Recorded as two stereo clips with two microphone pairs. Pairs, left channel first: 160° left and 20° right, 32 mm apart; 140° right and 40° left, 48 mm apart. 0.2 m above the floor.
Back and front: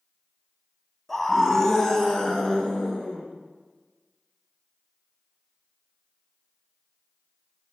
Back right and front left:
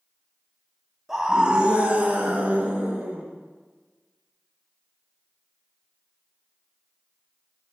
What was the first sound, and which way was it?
A scream, 95° left.